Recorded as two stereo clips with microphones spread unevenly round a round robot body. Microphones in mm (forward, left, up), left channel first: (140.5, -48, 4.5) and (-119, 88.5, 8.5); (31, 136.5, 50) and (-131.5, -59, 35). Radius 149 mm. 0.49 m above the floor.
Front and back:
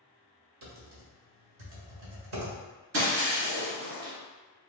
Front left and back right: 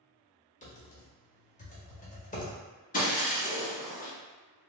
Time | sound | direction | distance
0.6 | typing on a keyboard | 110° left | 1.5 m
2.9 | breaking glass | 110° left | 1.5 m